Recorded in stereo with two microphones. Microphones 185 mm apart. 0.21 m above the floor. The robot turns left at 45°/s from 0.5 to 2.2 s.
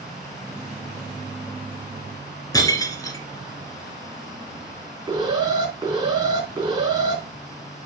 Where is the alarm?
15° right (ahead or behind), 3.5 m.